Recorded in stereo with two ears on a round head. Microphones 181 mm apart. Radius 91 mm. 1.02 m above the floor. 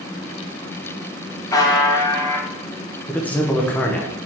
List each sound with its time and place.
1.5 s a buzzer: 20° left (ahead or behind), 0.7 m
3.1 s a man speaking: 10° left (ahead or behind), 0.7 m